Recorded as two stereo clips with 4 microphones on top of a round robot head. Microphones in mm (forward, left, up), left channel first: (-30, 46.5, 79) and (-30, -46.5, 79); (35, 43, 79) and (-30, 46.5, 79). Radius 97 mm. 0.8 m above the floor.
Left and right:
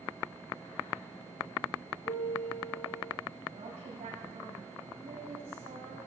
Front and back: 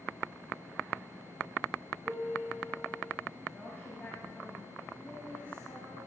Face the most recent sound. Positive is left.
turn(degrees=-75)